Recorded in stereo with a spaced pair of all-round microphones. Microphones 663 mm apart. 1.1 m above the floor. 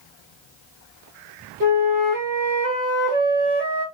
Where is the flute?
30° right (ahead or behind), 2 m.